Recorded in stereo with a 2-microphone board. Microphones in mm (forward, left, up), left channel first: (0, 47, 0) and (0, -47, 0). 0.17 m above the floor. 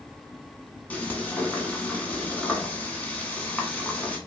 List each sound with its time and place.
0.9 s frying: 15° left (ahead or behind), 0.9 m